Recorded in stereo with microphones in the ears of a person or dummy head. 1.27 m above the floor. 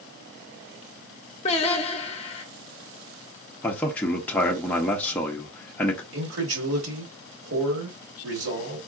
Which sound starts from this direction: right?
A man speaking, at 6.1 s.